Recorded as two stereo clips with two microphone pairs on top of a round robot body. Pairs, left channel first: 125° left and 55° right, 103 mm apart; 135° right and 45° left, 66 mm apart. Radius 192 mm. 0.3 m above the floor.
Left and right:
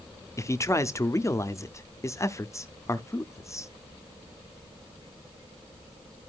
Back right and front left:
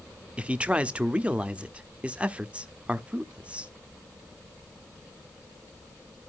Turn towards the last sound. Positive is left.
turn(degrees=95)